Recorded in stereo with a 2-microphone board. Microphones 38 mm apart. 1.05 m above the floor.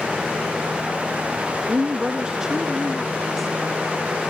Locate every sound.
1.7 s a woman speaking: 40° right (ahead or behind); by 4.2 s 5° left (ahead or behind)